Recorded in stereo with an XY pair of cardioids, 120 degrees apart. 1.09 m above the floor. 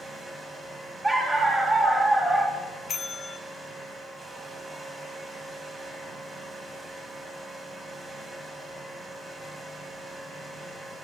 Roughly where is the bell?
Ahead left.